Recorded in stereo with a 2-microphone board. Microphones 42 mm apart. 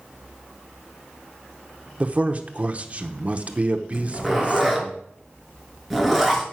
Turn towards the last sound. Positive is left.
turn(degrees=0)  # may be behind; listen again after turning